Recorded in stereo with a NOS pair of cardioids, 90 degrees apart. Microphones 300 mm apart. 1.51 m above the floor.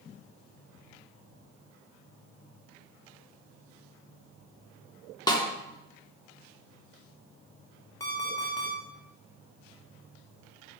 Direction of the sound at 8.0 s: 10° left.